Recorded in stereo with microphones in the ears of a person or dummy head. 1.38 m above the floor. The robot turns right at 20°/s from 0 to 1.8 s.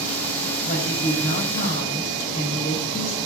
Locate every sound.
0.6 s a woman speaking: 35° left (ahead or behind), 6.5 m; by 3.2 s 60° left (ahead or behind), 6.5 m